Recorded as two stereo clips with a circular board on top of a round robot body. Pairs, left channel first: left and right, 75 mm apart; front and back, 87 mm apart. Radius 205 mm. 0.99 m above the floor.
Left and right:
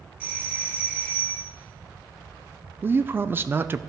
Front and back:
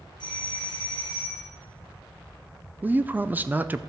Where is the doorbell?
20° right, 2 m.